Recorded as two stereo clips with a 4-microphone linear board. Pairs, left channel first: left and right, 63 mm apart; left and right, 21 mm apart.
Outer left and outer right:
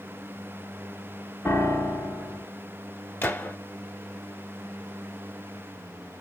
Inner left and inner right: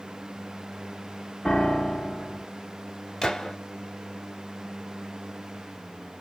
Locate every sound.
1.4 s a piano: 40° left (ahead or behind), 1.8 m
3.2 s a gunshot: 30° left (ahead or behind), 1.1 m